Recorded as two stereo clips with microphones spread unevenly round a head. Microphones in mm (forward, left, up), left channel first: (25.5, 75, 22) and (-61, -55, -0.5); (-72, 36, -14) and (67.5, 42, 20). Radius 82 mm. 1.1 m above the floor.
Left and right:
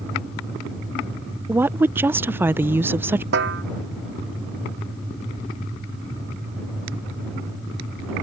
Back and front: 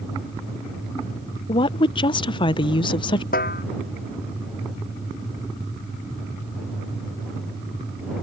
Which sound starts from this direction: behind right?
A snare drum, at 3.3 s.